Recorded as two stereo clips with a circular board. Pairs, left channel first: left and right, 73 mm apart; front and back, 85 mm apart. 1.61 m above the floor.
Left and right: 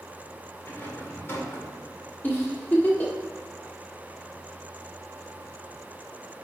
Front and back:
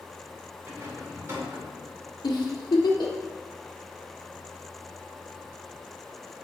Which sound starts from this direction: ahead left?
A giggle, at 2.2 s.